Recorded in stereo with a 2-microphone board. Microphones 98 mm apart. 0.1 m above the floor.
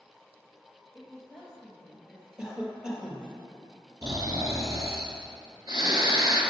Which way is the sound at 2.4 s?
10° right (ahead or behind).